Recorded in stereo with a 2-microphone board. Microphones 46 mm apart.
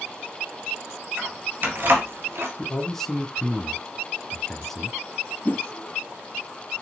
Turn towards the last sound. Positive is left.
turn(degrees=40)  # may be behind; listen again after turning